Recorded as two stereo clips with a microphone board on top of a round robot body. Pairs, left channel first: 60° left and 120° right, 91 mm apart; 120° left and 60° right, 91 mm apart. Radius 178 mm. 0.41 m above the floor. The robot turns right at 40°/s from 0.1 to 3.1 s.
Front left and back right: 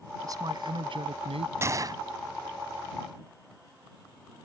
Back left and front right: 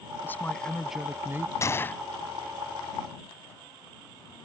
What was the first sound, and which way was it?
A man speaking, 175° right.